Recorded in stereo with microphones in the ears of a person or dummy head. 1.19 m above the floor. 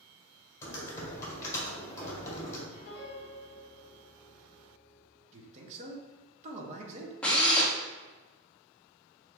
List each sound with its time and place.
0.6 s typing on a keyboard: 25° left (ahead or behind), 1.7 m
2.7 s a piano: 55° left (ahead or behind), 1.0 m
5.3 s a man speaking: 30° right (ahead or behind), 1.0 m
7.2 s a drill: 20° left (ahead or behind), 0.9 m